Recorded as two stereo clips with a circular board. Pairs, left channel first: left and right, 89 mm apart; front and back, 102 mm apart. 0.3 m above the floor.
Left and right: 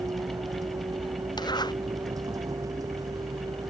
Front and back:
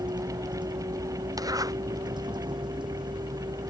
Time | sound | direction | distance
0.0 | a vehicle | 135° right | ?
1.4 | a zipper | 125° left | ?